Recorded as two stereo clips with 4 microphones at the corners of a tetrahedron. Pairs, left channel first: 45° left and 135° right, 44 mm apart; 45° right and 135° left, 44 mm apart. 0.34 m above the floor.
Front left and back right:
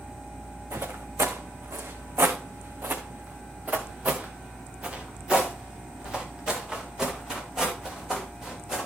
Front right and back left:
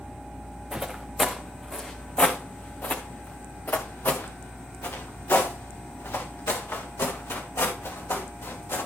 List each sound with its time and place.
0.7 s footsteps: 150° right, 1.4 m; by 8.9 s 55° right, 4 m